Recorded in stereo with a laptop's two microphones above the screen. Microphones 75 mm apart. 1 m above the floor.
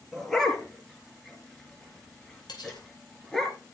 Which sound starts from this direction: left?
Cutlery clinking, at 2.5 s.